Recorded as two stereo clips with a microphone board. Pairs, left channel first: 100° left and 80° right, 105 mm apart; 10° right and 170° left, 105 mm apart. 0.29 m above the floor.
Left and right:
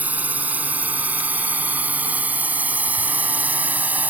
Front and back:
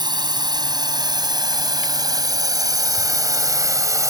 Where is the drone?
150° right; by 4.1 s 145° right.